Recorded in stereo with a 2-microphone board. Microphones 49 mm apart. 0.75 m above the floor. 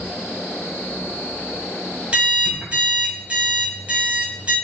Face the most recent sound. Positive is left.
turn(degrees=-25)  # may be behind; listen again after turning